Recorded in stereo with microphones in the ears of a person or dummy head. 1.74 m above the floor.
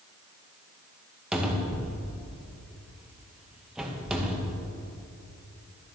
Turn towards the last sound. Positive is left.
turn(degrees=-5)  # may be behind; listen again after turning